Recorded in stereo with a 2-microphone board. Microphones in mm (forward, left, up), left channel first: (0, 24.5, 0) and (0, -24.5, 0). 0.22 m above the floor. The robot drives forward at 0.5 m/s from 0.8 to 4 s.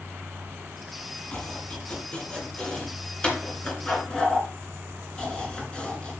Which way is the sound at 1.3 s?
25° left (ahead or behind).